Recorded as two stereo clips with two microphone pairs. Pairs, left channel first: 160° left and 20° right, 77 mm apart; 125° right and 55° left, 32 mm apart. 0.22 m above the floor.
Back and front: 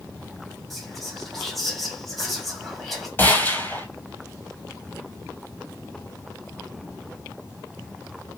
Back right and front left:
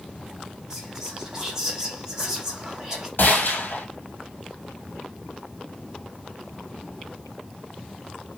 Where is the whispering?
75° left, 1.5 m.